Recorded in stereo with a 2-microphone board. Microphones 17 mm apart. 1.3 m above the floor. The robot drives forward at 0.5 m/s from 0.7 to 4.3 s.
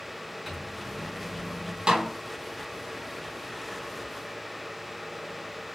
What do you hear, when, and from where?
0.5 s a microwave: 5° right (ahead or behind), 3.5 m
1.9 s a snare drum: 80° right, 3 m